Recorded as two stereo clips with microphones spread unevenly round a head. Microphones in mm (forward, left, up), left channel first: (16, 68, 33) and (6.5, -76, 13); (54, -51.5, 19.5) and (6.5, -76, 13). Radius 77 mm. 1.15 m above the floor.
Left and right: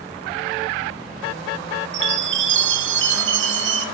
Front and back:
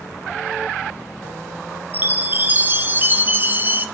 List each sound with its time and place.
1.9 s a chime: 95° right, 1.3 m